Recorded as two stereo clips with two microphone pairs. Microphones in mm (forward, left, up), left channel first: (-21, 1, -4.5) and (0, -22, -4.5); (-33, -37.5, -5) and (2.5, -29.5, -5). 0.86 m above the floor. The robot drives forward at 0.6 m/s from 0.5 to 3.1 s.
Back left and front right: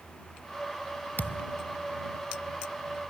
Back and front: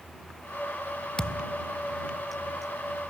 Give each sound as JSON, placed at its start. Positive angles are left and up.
{"t": 1.2, "sound": "a thud", "azimuth_deg": 130}